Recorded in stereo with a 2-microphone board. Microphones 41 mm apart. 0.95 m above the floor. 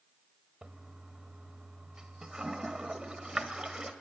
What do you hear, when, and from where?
0.6 s a toilet flushing: 20° right (ahead or behind), 0.8 m